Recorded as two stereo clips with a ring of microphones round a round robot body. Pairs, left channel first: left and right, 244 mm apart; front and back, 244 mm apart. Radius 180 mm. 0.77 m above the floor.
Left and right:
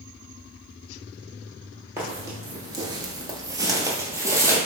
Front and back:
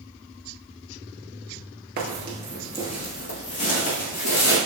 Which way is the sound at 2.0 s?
165° right.